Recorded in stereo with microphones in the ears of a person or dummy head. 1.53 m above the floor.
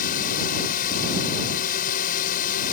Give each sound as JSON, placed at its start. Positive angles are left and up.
{"t": 0.0, "sound": "a drone", "side_deg": 45}